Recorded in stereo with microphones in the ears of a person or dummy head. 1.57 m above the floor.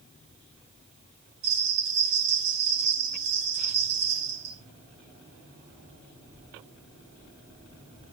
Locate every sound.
1.4 s a bell: 60° right (ahead or behind), 2.5 m